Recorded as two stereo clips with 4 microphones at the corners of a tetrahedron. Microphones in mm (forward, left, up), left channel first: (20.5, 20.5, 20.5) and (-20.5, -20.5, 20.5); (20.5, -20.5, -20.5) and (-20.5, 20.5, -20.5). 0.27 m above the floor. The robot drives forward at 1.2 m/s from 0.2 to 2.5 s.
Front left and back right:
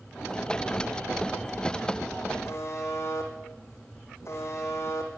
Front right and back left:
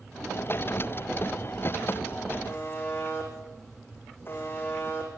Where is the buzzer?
5° left, 5.5 m.